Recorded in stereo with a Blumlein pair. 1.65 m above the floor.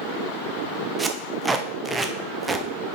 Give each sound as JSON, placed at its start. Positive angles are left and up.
{"t": 1.0, "sound": "tape being pulled", "azimuth_deg": -10, "distance_m": 0.8}